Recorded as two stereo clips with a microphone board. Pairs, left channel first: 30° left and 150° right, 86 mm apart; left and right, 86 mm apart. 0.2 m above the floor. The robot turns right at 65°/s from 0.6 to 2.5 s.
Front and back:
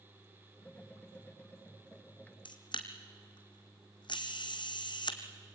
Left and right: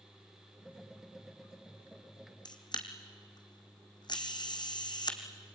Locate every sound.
2.5 s a camera shutter: 55° left, 2 m; by 5.2 s 60° left, 2 m